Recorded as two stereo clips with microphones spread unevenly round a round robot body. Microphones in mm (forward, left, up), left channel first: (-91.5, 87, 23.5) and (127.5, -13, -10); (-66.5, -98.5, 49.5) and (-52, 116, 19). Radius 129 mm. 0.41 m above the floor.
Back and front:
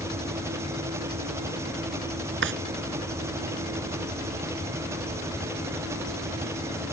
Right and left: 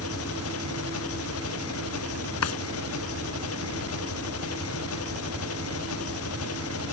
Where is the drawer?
70° right.